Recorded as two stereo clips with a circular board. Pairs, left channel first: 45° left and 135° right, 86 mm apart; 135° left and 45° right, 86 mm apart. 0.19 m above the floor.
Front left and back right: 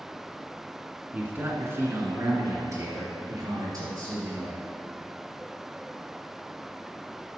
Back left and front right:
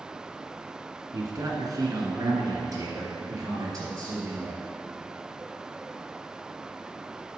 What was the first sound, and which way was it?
A man speaking, 70° right.